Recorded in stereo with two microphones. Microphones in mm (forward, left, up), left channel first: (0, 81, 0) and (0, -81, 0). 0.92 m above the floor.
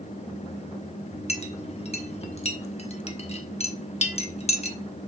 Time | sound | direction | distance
1.3 | a clink | 40° left (ahead or behind) | 1.0 m